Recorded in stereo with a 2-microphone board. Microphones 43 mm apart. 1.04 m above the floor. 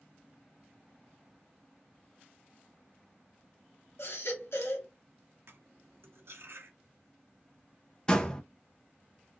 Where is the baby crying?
80° left, 1.2 m.